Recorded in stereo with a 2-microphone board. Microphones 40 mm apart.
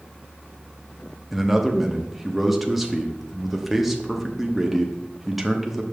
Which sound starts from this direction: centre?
A man speaking, at 1.3 s.